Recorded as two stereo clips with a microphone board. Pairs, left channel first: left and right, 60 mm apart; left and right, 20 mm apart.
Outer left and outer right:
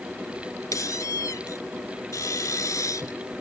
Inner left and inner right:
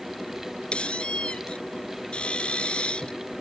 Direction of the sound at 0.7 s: 70° left (ahead or behind).